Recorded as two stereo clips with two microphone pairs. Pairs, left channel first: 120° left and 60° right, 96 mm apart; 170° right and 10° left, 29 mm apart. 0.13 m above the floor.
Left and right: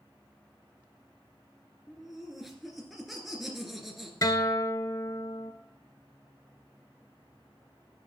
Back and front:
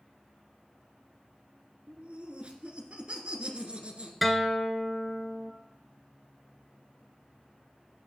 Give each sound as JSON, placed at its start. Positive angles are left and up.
{"t": 1.9, "sound": "laughter", "azimuth_deg": 25, "distance_m": 1.9}
{"t": 4.2, "sound": "a guitar", "azimuth_deg": 95, "distance_m": 0.8}